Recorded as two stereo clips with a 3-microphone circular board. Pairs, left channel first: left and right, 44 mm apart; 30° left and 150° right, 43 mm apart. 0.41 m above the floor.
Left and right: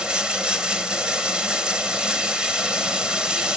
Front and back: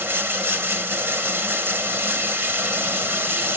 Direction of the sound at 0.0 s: 155° right.